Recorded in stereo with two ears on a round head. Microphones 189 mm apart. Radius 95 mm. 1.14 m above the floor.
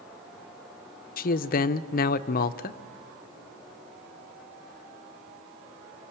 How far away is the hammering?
I don't hear hammering.